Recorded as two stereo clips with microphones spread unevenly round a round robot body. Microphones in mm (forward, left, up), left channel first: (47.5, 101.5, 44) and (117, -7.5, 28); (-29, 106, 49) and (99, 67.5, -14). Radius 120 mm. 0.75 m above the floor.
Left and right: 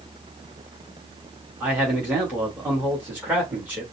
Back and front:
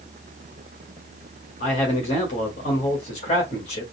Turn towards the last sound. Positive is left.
turn(degrees=-130)